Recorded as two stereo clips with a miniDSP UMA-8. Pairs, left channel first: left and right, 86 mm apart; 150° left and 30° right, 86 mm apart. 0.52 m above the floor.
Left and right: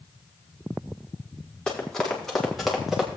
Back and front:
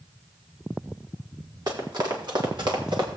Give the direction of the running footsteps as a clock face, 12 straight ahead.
12 o'clock.